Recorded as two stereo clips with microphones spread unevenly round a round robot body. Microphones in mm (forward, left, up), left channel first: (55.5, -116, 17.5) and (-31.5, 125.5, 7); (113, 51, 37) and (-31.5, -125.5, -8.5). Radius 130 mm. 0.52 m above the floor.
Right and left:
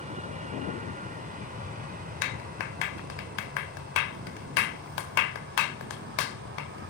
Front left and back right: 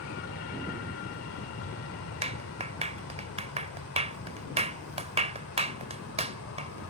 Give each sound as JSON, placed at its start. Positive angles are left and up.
{"t": 0.0, "sound": "an aircraft", "azimuth_deg": 55}
{"t": 2.2, "sound": "a clap", "azimuth_deg": -70}